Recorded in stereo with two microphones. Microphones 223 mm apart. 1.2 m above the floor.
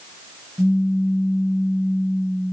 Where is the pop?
5° right (ahead or behind), 1.5 m.